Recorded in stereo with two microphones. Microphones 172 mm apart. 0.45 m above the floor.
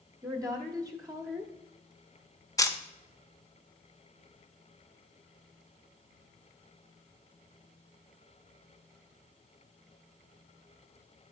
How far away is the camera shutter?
About 0.8 m.